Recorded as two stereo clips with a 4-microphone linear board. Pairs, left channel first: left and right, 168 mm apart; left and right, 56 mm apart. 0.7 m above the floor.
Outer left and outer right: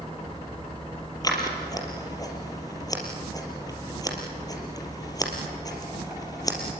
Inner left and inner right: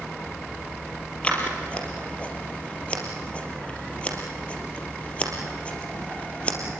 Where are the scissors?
20° left (ahead or behind), 4 m.